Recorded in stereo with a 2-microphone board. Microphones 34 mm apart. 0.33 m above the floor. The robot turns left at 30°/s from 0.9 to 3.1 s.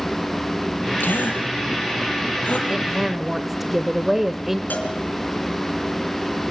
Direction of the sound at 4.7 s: 65° left (ahead or behind).